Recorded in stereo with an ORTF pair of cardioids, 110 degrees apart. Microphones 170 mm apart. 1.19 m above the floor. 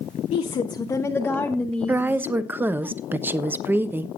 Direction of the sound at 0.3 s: 45° left.